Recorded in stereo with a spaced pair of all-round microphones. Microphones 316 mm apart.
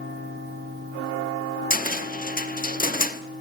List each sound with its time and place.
1.7 s a cupboard door: 25° left (ahead or behind), 0.8 m